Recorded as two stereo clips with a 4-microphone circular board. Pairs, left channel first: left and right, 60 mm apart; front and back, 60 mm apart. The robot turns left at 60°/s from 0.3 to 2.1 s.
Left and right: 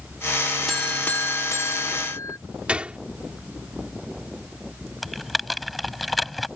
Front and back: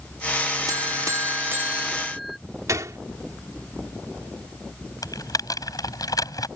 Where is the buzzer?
175° left; by 2.4 s 90° left.